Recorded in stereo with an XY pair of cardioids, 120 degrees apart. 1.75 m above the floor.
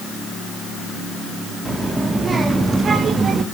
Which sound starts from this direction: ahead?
A child speaking, at 1.6 s.